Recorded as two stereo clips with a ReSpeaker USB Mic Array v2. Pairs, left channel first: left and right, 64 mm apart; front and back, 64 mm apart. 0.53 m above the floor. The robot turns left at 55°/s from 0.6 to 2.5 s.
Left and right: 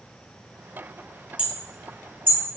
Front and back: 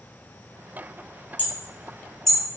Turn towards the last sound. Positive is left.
turn(degrees=-95)